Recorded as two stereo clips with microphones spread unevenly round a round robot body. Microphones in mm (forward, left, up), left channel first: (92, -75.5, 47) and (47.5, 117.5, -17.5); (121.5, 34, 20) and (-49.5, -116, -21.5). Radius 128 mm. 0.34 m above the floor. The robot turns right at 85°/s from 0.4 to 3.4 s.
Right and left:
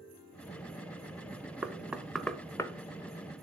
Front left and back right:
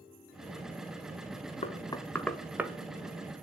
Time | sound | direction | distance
1.6 | knocking | 95° left | 0.9 m